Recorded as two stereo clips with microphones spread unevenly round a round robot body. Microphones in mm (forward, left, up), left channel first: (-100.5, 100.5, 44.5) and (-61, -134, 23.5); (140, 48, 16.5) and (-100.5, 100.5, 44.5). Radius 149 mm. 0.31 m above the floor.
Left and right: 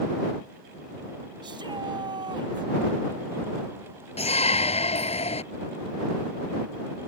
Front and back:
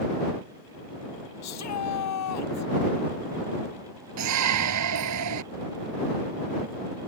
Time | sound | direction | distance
1.4 | a shout | 5° right | ?
4.2 | a shout | 165° left | ?